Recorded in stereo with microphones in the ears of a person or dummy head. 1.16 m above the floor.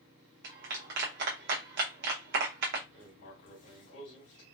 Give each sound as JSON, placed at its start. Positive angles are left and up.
{"t": 0.4, "sound": "a clap", "side_deg": -60, "distance_m": 0.8}
{"t": 2.9, "sound": "writing", "side_deg": 65, "distance_m": 2.0}